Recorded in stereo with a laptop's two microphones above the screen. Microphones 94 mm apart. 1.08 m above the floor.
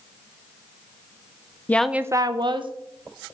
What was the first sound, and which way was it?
A woman speaking, 20° left (ahead or behind).